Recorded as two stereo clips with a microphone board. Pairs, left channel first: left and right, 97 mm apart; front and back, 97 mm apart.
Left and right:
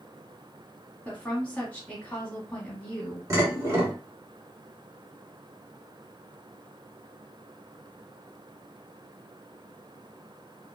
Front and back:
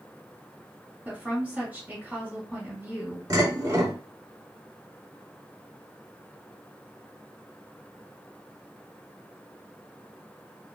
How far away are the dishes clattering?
About 1.4 m.